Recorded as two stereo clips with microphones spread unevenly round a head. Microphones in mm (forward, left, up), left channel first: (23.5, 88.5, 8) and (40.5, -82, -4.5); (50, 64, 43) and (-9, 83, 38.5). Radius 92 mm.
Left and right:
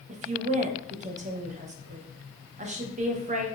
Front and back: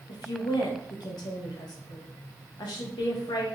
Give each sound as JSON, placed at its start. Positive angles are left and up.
{"t": 0.1, "sound": "a woman speaking", "azimuth_deg": -35, "distance_m": 0.6}